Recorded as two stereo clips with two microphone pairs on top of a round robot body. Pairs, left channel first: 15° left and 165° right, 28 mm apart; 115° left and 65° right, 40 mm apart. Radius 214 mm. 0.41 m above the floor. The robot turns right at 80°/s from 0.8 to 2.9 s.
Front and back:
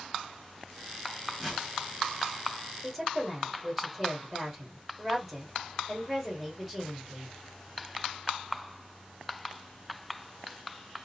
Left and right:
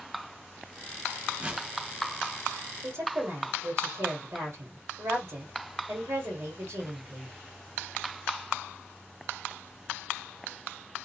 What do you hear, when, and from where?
1.4 s a whoosh: 90° right, 1.4 m; by 1.7 s 70° right, 1.4 m
2.8 s a woman speaking: 100° right, 1.7 m; by 7.4 s 95° right, 1.7 m